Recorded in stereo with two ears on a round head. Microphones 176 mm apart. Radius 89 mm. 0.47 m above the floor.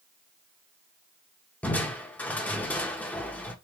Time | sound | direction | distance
1.6 | crushing | 10° left (ahead or behind) | 0.9 m